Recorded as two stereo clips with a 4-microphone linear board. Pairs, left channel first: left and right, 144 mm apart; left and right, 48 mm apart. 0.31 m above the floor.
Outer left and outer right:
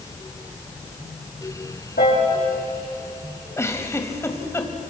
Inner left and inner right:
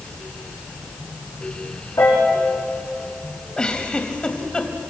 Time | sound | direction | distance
2.0 | a piano | 80° left | 7 m
3.6 | a giggle | 20° left (ahead or behind) | 1.9 m